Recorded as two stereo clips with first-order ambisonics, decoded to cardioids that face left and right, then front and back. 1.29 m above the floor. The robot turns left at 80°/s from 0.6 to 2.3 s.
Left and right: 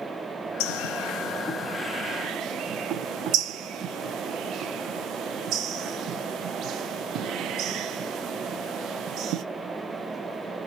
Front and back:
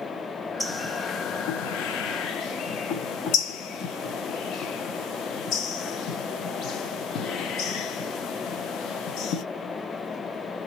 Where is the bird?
90° left, 0.6 m; by 9.4 s 45° right, 0.6 m.